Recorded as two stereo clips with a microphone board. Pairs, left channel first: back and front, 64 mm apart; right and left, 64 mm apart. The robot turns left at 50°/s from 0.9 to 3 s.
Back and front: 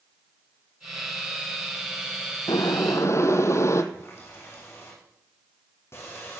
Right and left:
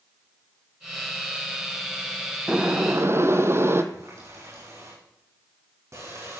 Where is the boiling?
165° left, 1.2 m; by 3.8 s 140° left, 1.2 m.